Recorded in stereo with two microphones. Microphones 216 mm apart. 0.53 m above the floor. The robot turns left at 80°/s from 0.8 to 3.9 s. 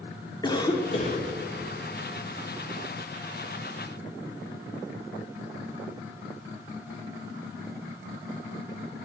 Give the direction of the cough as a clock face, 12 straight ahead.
7 o'clock.